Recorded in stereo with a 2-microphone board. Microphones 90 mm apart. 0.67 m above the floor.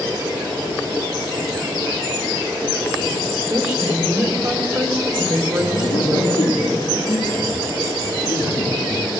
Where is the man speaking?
50° left (ahead or behind), 5 m.